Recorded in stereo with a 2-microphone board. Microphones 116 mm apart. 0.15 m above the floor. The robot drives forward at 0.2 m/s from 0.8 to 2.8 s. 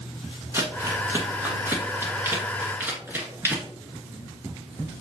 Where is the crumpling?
20° right (ahead or behind), 1.3 m.